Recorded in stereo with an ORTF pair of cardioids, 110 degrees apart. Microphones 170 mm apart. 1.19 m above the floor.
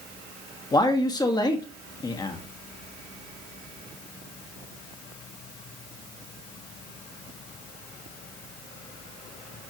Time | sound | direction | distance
0.7 | a man speaking | 25° left | 1.6 m